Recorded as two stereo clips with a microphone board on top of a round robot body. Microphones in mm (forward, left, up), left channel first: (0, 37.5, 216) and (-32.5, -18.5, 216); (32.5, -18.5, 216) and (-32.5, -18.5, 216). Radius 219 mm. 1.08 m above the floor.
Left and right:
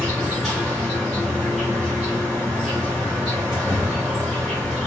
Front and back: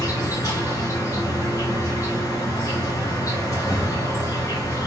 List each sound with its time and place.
0.0 s an insect: 30° right, 0.8 m